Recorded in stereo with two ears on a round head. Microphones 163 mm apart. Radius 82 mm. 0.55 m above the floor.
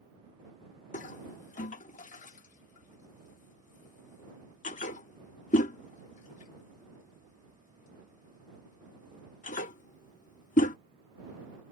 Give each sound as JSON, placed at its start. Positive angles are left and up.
{"t": 0.9, "sound": "a toilet flushing", "side_deg": 45}